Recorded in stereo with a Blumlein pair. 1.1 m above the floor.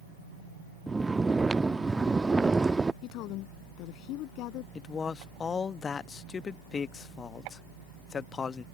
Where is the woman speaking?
40° left.